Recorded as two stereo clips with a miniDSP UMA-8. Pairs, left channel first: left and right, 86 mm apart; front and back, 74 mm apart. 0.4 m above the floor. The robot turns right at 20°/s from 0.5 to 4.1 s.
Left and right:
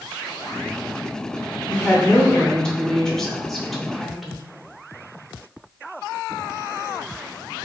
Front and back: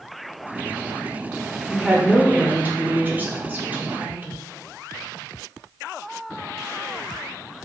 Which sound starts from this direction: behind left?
A woman speaking, at 1.7 s.